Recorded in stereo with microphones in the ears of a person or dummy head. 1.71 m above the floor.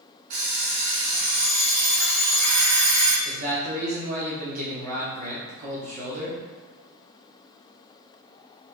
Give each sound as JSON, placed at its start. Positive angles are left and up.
{"t": 0.3, "sound": "an alarm clock", "side_deg": -40, "distance_m": 1.5}
{"t": 3.2, "sound": "a man speaking", "side_deg": -50, "distance_m": 1.0}